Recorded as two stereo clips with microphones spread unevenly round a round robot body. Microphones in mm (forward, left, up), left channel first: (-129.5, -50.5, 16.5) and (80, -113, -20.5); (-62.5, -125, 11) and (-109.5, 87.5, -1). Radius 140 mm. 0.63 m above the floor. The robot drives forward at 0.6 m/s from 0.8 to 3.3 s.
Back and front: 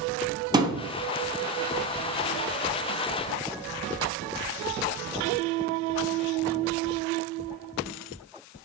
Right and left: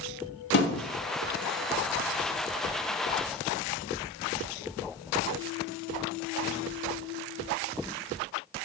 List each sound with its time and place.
0.5 s a thud: 90° right, 0.7 m; by 0.8 s 95° right, 0.7 m